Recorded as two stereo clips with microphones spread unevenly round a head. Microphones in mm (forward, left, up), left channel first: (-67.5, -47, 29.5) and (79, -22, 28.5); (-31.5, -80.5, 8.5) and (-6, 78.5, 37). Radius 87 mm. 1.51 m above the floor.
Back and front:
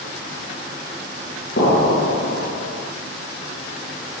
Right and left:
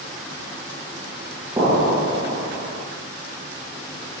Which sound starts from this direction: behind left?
An explosion, at 1.6 s.